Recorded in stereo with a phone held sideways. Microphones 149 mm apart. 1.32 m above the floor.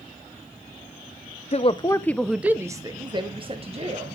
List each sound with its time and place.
1.5 s a woman speaking: 45° left (ahead or behind), 0.6 m; by 4.2 s 45° right (ahead or behind), 1.4 m